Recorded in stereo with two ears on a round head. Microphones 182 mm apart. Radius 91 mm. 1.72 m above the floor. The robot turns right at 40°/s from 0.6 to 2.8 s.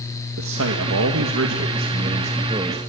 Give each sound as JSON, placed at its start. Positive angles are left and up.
{"t": 0.4, "sound": "a man speaking", "azimuth_deg": -100, "distance_m": 2.0}